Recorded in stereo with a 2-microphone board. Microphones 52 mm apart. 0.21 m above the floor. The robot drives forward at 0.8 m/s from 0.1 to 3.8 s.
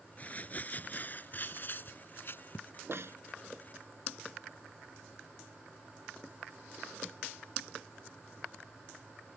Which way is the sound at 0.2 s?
30° left (ahead or behind).